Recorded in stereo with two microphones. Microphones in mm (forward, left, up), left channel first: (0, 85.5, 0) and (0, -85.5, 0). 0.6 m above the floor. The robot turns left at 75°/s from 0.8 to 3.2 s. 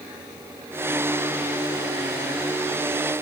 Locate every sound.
Only background noise.